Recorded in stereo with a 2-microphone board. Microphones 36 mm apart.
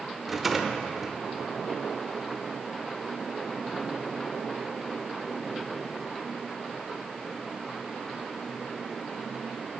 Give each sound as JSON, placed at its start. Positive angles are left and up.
{"t": 0.3, "sound": "a rattle", "side_deg": -5, "distance_m": 0.8}